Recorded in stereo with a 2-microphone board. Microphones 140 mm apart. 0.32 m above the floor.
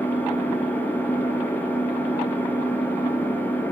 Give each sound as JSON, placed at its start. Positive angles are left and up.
{"t": 0.0, "sound": "an engine running", "side_deg": 10, "distance_m": 3.0}